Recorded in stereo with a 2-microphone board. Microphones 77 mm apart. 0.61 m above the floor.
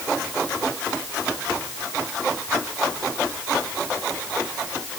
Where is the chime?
I don't hear a chime.